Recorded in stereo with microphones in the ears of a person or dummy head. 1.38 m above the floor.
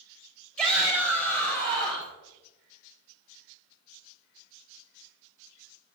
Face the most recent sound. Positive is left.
turn(degrees=10)  # may be behind; listen again after turning